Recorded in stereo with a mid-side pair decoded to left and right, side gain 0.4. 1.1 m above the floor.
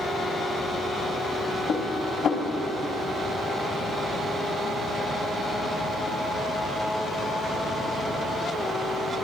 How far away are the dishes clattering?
About 1.7 m.